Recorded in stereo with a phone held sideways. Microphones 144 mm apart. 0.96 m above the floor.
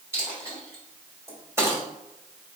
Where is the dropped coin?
20° right (ahead or behind), 1.6 m.